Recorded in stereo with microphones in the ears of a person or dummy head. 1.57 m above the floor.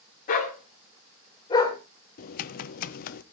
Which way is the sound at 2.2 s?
50° left (ahead or behind).